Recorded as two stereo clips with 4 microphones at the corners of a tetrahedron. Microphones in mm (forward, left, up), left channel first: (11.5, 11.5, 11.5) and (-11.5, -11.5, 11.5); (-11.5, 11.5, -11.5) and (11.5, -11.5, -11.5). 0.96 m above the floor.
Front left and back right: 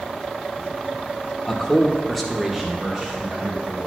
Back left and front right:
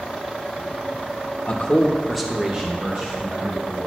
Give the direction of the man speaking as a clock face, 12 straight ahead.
9 o'clock.